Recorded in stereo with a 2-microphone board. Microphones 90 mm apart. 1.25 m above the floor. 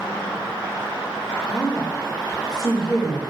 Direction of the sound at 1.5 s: 85° left.